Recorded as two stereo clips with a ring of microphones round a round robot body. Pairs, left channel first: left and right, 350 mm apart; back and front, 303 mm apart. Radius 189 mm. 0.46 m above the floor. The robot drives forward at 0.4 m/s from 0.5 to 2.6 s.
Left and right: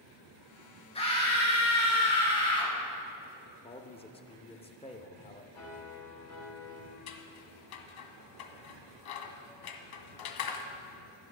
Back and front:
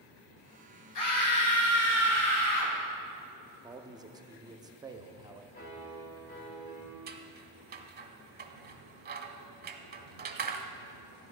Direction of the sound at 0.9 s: 165° left.